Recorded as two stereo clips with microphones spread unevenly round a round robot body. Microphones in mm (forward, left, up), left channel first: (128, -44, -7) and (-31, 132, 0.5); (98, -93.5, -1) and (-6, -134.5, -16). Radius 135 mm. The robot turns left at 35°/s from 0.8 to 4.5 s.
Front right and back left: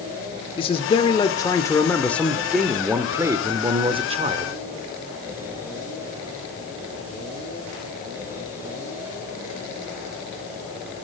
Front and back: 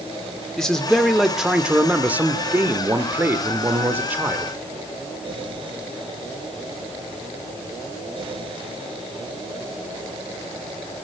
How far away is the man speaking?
About 0.8 m.